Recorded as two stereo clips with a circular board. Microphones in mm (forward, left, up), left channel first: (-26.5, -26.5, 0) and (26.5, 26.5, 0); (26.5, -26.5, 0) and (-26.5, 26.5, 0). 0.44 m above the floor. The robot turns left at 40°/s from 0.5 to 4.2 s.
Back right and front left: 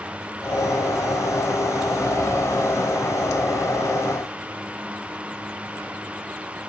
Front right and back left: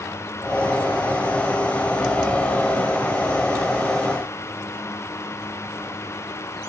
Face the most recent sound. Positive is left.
No sound to turn to.